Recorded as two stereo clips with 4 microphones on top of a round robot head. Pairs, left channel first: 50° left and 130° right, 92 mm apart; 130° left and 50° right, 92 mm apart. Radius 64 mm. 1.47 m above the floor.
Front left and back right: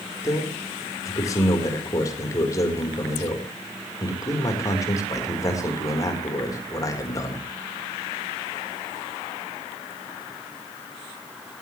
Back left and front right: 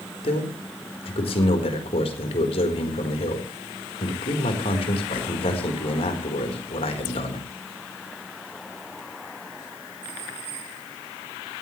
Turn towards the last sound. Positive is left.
turn(degrees=105)